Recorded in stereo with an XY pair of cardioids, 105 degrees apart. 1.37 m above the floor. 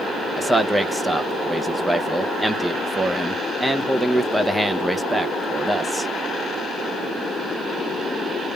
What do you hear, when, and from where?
0.4 s a man speaking: 10° right, 0.9 m